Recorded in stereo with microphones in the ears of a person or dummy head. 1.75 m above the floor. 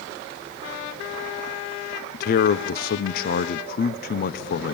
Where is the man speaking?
60° left (ahead or behind), 0.9 m.